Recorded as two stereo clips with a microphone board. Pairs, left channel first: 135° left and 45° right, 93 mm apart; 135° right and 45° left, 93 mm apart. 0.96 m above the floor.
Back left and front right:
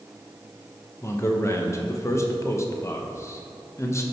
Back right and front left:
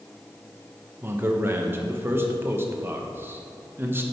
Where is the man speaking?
95° left, 0.8 m.